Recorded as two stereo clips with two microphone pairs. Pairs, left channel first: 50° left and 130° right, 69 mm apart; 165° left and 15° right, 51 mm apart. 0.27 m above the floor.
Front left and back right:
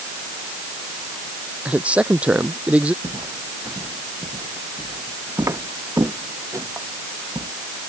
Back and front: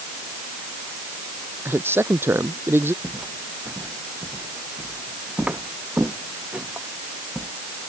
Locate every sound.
1.6 s a man speaking: 55° right
3.0 s footsteps: 75° right; by 7.5 s 85° right